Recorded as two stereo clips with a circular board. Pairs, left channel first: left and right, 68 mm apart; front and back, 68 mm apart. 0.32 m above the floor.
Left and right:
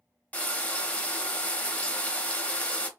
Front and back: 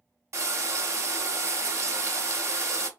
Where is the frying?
150° left, 0.7 m.